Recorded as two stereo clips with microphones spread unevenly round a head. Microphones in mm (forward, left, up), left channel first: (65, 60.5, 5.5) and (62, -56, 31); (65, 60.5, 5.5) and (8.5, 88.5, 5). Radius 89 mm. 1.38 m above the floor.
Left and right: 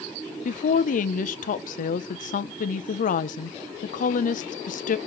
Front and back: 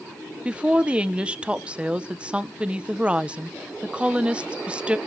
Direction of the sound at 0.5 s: 80° left.